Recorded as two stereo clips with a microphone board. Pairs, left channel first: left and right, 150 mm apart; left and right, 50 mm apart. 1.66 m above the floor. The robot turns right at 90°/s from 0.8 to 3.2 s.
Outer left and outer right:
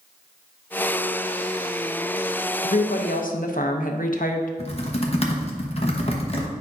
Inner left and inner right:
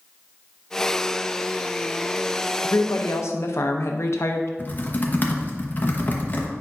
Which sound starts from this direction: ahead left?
A woman speaking, at 2.6 s.